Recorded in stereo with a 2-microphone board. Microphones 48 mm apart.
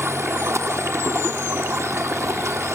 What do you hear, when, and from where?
0.0 s running water: 75° right (ahead or behind), 0.9 m